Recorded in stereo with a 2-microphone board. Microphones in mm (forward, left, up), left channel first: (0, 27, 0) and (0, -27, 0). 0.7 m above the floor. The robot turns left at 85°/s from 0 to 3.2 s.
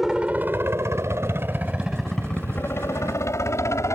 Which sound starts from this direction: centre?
A helicopter, at 0.0 s.